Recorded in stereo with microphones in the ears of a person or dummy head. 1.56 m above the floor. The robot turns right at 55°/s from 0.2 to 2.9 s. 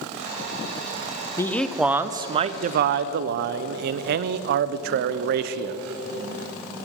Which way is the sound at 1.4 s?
165° left.